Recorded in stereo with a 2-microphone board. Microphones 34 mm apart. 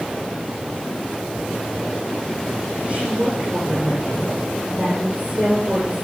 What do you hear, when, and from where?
2.9 s a woman speaking: 35° right (ahead or behind), 8 m